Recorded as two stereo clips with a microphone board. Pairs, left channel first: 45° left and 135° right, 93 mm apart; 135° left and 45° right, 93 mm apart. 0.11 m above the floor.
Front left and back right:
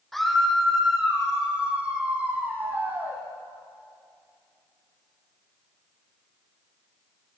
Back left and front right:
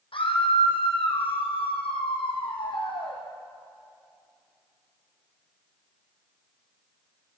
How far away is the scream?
About 4.5 m.